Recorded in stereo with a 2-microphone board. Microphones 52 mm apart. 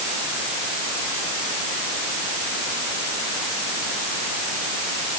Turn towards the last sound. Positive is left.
No sound to turn to.